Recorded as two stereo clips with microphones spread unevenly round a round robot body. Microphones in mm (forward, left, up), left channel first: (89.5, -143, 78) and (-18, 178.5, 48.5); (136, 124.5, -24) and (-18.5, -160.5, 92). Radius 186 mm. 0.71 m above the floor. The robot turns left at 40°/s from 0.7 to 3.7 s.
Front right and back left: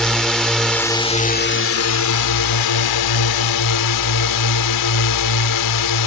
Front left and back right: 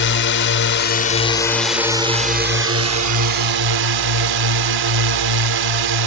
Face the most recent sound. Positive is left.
turn(degrees=-100)